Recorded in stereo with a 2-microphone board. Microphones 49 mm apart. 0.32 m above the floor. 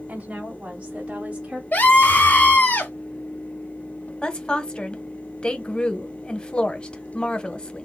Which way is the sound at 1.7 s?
40° left (ahead or behind).